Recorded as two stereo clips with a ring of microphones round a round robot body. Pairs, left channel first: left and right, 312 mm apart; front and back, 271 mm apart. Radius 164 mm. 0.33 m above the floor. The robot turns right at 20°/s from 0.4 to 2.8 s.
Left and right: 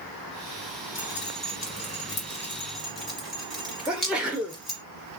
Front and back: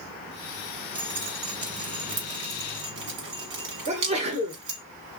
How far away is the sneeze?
About 1.0 m.